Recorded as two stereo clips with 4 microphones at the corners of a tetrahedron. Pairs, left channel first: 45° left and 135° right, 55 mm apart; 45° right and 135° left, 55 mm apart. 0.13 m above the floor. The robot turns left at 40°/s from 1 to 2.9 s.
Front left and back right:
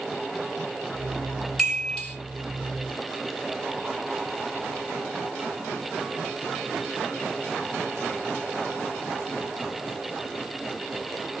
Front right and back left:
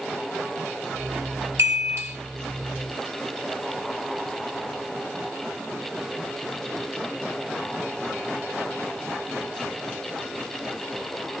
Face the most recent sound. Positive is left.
turn(degrees=75)